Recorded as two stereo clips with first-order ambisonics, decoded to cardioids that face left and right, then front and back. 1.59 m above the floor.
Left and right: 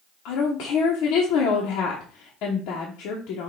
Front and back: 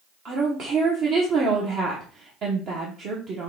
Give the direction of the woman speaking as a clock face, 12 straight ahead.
8 o'clock.